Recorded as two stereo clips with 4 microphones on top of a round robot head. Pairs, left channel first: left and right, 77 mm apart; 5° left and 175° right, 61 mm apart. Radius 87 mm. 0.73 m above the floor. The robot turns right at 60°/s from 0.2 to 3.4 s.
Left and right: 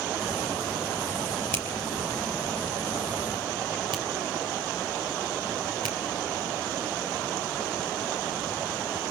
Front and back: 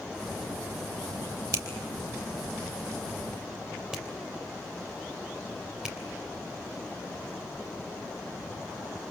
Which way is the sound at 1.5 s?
155° left.